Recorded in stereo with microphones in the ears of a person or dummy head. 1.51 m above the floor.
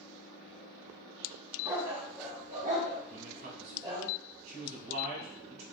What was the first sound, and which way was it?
A dog barking, 20° right (ahead or behind).